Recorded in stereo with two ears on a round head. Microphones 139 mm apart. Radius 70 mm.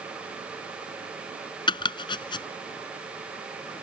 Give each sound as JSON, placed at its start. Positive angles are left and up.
{"t": 1.7, "sound": "chopping", "side_deg": 30}